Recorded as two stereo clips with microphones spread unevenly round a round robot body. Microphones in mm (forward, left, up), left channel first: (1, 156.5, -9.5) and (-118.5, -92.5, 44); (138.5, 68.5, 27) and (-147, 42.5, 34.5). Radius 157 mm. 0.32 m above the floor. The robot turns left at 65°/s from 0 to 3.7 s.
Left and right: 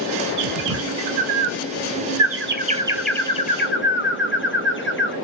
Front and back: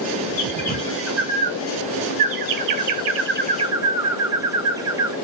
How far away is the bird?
About 0.6 m.